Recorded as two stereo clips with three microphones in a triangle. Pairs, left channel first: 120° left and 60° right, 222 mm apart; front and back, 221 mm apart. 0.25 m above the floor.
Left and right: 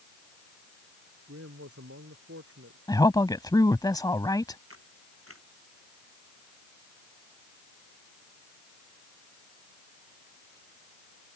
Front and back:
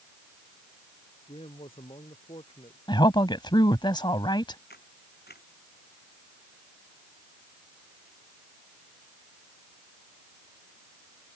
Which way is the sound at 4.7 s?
45° right.